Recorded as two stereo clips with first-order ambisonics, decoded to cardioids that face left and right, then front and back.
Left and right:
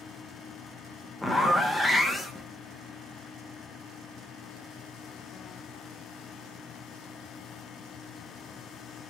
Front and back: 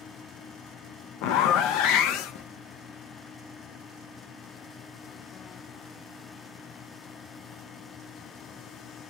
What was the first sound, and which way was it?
A zipper, 5° left.